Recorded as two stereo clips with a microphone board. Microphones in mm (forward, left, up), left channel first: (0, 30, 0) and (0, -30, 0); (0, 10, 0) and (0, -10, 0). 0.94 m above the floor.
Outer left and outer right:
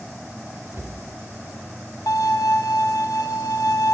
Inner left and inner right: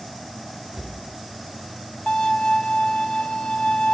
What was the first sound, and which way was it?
A cupboard door, 40° right (ahead or behind).